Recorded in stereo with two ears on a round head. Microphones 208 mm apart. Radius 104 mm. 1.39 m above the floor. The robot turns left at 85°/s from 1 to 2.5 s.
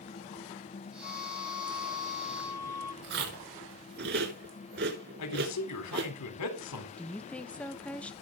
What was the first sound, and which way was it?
A flute, 140° left.